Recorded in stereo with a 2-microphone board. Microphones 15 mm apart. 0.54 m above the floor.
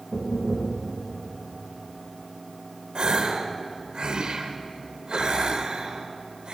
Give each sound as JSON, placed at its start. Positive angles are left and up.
{"t": 0.1, "sound": "knocking", "side_deg": 65, "distance_m": 2.5}
{"t": 3.0, "sound": "a gasp", "side_deg": -65, "distance_m": 0.9}